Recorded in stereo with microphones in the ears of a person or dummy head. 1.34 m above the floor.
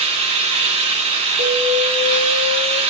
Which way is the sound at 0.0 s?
35° right (ahead or behind).